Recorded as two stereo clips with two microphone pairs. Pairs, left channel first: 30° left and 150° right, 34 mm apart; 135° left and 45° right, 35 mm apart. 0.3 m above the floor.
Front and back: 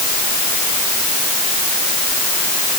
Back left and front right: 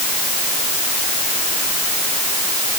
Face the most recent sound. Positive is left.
No sound to turn to.